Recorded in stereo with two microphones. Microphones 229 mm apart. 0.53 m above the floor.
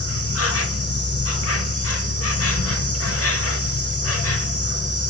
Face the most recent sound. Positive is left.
turn(degrees=75)  # may be behind; listen again after turning